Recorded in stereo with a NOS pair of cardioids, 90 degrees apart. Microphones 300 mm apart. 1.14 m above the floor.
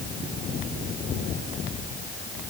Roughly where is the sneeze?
I don't hear a sneeze.